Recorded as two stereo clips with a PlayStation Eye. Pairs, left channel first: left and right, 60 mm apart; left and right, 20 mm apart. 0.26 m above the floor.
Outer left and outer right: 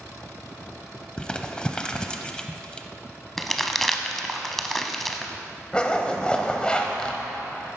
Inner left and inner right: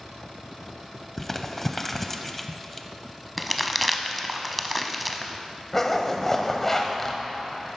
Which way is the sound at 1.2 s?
15° left (ahead or behind).